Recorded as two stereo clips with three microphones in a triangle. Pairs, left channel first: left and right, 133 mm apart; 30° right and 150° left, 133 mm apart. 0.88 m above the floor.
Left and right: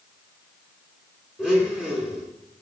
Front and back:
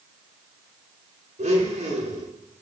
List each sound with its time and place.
1.4 s a blender: 175° right, 4 m